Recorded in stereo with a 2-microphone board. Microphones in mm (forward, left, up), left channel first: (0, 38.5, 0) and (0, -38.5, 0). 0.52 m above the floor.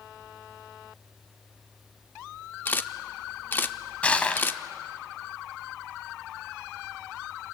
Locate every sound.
2.6 s a camera shutter: 25° left (ahead or behind), 0.8 m
4.0 s crushing: 15° left (ahead or behind), 1.3 m